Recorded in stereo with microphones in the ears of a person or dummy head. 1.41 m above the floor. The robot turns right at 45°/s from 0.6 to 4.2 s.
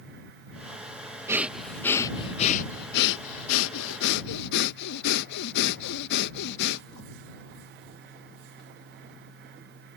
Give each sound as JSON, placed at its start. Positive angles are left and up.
{"t": 1.3, "sound": "breathing", "azimuth_deg": -10}